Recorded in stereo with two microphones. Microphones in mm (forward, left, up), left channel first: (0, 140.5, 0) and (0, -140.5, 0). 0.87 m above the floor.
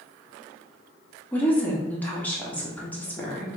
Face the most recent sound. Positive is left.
turn(degrees=5)  # may be behind; listen again after turning